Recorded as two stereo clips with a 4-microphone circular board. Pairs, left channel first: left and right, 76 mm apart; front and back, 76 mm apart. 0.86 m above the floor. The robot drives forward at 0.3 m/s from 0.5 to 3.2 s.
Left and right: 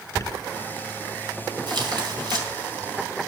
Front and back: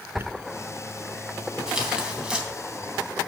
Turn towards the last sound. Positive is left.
turn(degrees=-110)